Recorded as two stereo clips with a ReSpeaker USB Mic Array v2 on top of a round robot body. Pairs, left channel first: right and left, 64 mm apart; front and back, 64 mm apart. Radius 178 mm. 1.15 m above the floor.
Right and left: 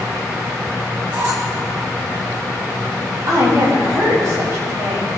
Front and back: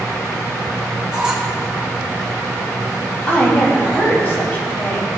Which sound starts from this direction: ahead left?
A woman speaking, at 3.3 s.